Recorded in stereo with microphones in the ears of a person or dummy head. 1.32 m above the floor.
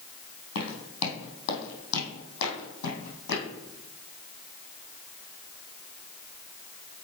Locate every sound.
0.6 s footsteps: 60° left (ahead or behind), 2.5 m